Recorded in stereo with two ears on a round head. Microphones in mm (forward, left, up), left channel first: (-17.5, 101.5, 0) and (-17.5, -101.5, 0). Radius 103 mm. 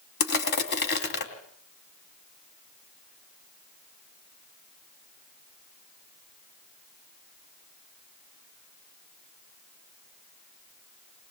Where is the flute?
No flute in this recording.